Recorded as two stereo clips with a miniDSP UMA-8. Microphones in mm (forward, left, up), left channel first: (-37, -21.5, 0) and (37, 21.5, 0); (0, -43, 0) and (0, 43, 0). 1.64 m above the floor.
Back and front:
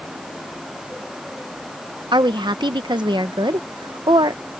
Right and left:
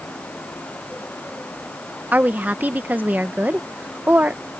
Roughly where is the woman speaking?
Ahead left.